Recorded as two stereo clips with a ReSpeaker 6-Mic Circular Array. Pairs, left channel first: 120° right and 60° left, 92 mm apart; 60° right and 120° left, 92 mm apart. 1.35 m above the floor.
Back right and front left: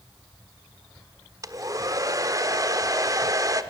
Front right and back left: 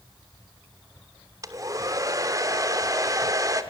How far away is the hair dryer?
About 1.2 m.